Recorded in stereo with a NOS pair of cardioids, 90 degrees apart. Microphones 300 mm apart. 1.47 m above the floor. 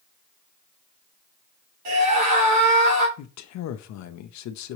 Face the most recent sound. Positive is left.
turn(degrees=70)